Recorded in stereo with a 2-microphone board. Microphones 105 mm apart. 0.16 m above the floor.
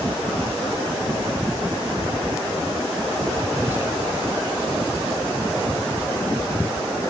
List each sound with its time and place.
3.5 s whispering: 20° right (ahead or behind), 1.3 m